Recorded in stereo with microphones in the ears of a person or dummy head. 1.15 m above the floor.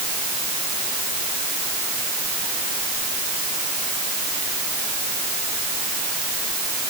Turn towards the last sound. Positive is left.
No sound to turn to.